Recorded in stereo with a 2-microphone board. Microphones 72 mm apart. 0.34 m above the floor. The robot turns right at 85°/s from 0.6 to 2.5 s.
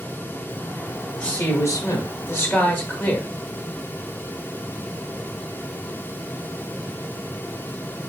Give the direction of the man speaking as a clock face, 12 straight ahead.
11 o'clock.